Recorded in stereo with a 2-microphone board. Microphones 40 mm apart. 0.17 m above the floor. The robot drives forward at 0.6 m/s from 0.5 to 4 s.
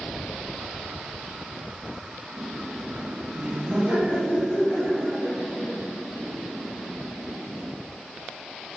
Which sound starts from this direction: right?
Laughter, at 2.3 s.